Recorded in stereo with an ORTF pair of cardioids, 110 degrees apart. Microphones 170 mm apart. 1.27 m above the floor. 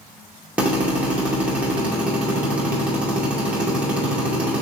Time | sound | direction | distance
0.6 | a drill | 10° right | 2 m